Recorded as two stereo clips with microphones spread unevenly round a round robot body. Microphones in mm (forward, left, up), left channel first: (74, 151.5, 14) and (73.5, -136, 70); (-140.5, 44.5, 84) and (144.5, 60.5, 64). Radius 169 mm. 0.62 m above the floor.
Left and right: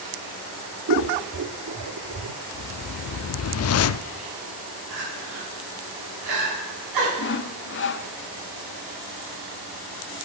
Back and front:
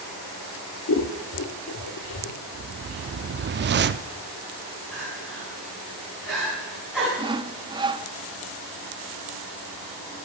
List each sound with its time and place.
0.9 s scissors: 130° right, 0.7 m
2.5 s a whoosh: 55° left, 0.5 m
4.9 s crying: 85° right, 5 m
7.2 s sawing: 70° left, 0.6 m